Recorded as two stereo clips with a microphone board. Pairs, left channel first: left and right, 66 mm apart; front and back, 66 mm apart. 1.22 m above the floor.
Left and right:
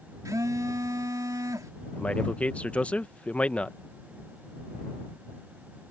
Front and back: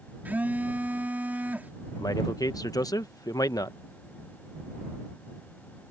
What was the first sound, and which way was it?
A phone buzzing, 115° right.